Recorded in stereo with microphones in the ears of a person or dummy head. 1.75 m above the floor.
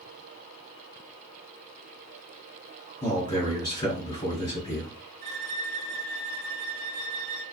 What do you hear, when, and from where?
3.0 s a man speaking: 35° left (ahead or behind), 1.3 m
5.2 s a violin: 35° right (ahead or behind), 1.6 m